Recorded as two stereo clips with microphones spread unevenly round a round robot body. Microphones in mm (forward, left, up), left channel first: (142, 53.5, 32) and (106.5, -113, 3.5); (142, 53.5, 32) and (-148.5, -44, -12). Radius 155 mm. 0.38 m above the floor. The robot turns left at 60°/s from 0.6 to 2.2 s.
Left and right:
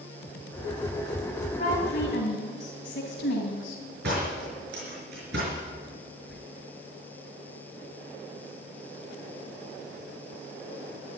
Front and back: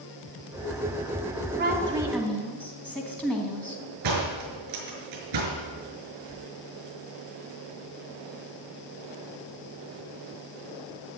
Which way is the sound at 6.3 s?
15° right.